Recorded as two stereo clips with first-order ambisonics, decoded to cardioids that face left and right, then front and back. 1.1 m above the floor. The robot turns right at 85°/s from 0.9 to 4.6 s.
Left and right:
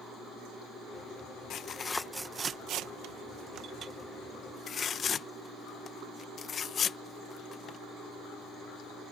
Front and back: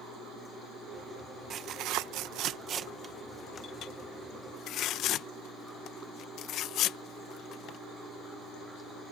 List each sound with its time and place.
1.5 s tearing paper: 130° left; by 7.8 s 30° left